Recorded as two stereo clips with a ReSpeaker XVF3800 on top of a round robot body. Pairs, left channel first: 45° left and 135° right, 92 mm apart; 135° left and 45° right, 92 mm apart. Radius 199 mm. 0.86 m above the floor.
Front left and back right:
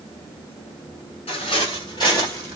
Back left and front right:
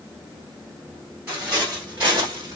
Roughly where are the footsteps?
Ahead left.